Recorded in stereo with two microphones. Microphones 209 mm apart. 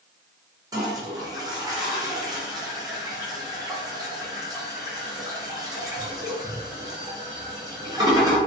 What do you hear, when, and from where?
0.7 s a toilet flushing: 20° right (ahead or behind), 0.6 m